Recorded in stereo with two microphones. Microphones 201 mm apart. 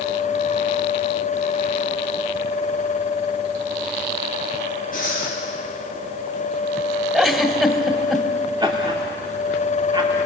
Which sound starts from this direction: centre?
A giggle, at 7.1 s.